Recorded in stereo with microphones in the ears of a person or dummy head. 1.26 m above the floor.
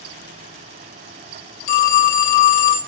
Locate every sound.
1.7 s a phone ringing: 45° left (ahead or behind), 0.8 m